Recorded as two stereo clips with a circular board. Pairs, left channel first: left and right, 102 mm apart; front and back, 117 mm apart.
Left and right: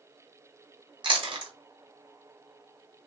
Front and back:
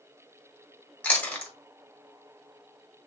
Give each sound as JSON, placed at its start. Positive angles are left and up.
{"t": 1.0, "sound": "chewing", "azimuth_deg": -75, "distance_m": 1.2}